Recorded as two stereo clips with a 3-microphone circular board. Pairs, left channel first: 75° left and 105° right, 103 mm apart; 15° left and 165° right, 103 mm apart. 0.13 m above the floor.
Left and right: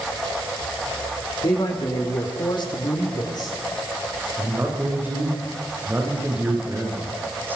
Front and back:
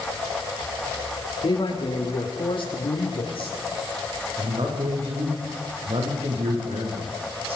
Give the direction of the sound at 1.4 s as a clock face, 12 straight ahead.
11 o'clock.